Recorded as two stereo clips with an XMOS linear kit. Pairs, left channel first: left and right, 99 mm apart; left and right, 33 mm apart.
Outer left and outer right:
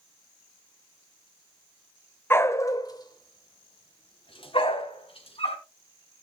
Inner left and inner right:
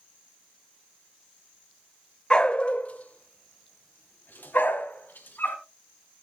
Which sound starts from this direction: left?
A dog barking, at 2.3 s.